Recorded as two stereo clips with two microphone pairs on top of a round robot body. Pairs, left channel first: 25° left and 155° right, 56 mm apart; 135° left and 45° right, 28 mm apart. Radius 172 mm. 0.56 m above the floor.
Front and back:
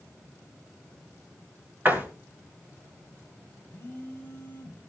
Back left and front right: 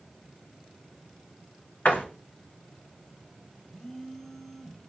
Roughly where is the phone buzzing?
Left.